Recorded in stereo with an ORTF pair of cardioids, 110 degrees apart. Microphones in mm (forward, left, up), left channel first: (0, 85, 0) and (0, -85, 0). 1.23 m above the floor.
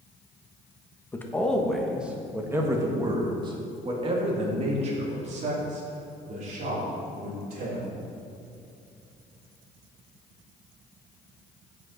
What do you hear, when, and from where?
1.1 s a man speaking: 15° left, 1.6 m; by 7.8 s 55° right, 4.5 m